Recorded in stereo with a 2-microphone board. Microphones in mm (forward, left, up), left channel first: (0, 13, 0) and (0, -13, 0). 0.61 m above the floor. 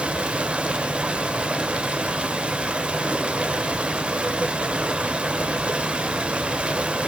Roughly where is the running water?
Right.